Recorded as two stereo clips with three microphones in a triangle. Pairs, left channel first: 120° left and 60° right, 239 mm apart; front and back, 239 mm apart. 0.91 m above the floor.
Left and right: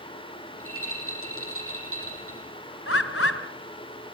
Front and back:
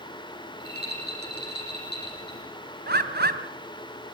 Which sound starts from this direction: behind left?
A bird, at 2.9 s.